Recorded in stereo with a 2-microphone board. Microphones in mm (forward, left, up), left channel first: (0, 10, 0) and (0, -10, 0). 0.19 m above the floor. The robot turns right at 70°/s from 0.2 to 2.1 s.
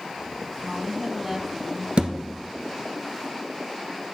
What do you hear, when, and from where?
0.6 s a woman speaking: 80° right, 1.1 m; by 1.9 s 5° left, 1.1 m
2.0 s a thud: 65° right (ahead or behind), 1.5 m; by 2.1 s 70° right (ahead or behind), 1.5 m